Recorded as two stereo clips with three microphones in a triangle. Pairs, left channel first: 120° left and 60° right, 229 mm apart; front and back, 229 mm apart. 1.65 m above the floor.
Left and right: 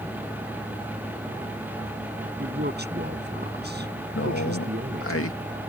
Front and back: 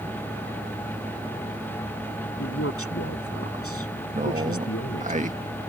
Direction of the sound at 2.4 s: 15° right.